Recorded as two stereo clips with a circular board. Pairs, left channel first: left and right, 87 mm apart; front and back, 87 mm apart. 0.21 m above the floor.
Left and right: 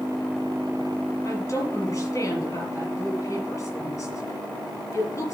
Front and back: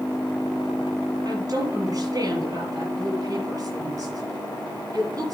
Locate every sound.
1.2 s a woman speaking: 140° left, 5.5 m